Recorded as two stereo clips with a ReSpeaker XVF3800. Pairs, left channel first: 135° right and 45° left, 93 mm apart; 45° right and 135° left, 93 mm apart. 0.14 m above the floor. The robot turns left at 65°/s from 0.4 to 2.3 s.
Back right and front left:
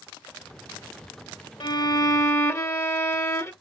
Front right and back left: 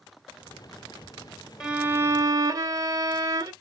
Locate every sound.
1.6 s a violin: 145° right, 0.6 m; by 3.5 s 170° left, 0.6 m